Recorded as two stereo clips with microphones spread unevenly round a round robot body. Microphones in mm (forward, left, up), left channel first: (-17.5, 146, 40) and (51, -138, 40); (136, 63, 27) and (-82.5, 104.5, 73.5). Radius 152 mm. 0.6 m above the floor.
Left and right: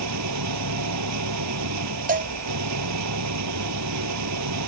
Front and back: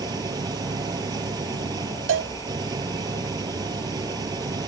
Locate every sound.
0.0 s an engine running: 115° right
2.1 s a cowbell: 140° right